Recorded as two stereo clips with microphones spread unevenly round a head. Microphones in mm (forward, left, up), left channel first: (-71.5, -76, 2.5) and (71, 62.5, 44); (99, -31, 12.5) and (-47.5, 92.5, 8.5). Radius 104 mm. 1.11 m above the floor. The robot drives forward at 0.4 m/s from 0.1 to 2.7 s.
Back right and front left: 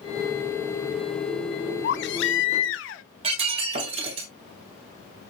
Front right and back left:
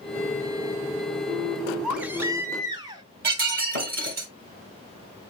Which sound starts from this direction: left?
Breaking glass, at 3.2 s.